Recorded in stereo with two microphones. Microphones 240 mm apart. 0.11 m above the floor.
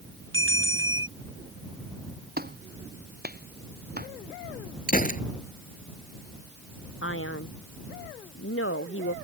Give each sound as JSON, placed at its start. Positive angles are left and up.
{"t": 0.3, "sound": "a bell", "side_deg": -50}
{"t": 2.4, "sound": "a clap", "side_deg": -40}
{"t": 4.9, "sound": "a gunshot", "side_deg": 35}
{"t": 7.0, "sound": "a man speaking", "side_deg": 55}